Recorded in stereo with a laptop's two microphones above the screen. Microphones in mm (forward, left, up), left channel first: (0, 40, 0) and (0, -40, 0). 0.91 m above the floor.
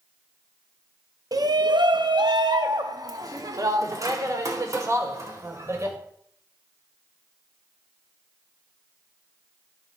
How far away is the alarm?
No alarm in this recording.